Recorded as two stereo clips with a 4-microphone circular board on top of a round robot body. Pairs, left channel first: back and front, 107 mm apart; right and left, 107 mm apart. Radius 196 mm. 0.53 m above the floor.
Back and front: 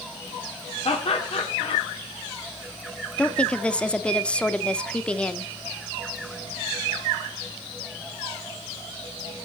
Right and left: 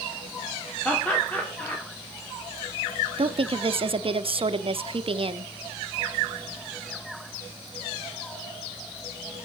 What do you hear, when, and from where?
0.8 s laughter: 165° right, 2.5 m
3.2 s a woman speaking: 100° left, 1.2 m